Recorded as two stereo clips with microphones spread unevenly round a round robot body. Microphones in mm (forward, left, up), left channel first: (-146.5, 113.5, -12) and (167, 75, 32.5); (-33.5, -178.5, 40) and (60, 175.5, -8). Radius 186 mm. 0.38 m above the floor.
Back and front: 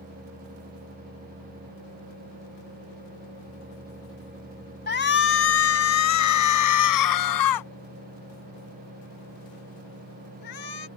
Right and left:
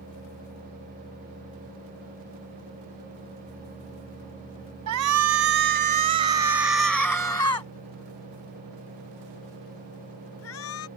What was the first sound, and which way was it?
A shout, 115° left.